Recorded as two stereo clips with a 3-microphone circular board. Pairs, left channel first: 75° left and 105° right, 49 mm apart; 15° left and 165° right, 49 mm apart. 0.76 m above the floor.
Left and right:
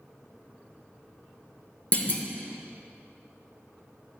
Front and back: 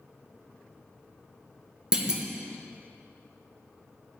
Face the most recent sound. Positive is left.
turn(degrees=130)